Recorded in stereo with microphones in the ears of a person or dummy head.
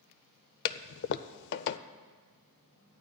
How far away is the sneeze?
No sneeze in this recording.